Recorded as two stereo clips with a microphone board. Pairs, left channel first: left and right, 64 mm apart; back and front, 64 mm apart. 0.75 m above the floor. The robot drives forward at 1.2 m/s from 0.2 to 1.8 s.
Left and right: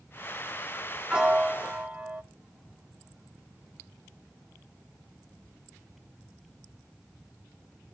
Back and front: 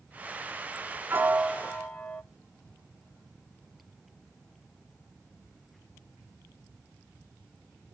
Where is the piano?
20° right, 0.8 m; by 2.2 s 150° right, 0.7 m.